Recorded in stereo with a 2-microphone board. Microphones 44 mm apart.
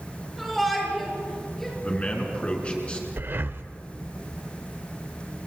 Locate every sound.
0.4 s a shout: centre (ahead or behind), 7 m; by 1.7 s 5° left (ahead or behind), 7.5 m
1.8 s a man speaking: 30° left (ahead or behind), 4.5 m
3.2 s breathing: 55° right (ahead or behind), 0.8 m